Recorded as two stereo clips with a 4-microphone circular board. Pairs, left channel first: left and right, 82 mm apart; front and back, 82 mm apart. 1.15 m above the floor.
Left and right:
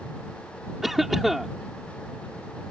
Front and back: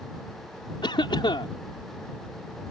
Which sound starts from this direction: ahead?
A cough, at 0.8 s.